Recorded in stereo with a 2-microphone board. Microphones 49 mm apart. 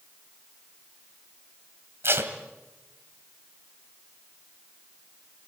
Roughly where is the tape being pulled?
Right.